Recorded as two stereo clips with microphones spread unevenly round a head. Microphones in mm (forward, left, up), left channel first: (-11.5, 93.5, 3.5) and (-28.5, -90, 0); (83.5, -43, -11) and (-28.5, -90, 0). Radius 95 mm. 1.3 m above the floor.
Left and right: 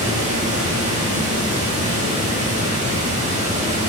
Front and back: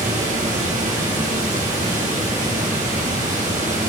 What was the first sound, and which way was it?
Running water, 150° right.